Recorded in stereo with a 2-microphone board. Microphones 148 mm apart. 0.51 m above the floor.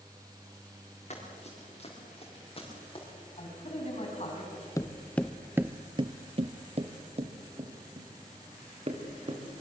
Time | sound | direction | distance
1.1 | running footsteps | 50° left (ahead or behind) | 5 m
3.4 | a man speaking | 45° left (ahead or behind) | 5 m
4.8 | footsteps | 20° left (ahead or behind) | 0.9 m